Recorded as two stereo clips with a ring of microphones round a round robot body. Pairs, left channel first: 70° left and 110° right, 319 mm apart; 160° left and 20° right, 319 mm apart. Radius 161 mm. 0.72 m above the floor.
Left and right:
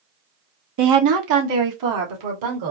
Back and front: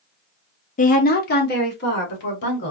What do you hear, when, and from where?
0.8 s a woman speaking: 140° right, 0.8 m; by 2.7 s 145° right, 2 m